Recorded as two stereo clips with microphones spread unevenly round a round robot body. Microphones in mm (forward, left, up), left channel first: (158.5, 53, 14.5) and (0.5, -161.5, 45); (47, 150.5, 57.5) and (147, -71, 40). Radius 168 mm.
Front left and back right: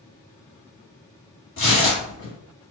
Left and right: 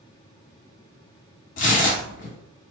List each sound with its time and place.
1.6 s tearing paper: 105° left, 0.9 m